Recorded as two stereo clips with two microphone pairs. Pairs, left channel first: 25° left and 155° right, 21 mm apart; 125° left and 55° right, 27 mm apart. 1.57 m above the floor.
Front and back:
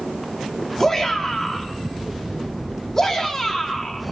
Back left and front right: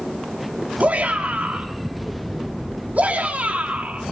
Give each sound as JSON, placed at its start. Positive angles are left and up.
{"t": 0.8, "sound": "a shout", "azimuth_deg": -40, "distance_m": 4.5}